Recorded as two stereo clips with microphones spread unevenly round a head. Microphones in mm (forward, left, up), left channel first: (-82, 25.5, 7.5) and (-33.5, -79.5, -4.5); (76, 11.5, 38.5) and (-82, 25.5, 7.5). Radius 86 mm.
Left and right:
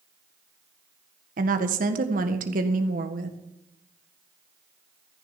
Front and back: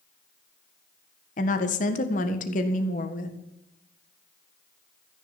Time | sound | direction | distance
1.4 | a woman speaking | 50° right | 1.7 m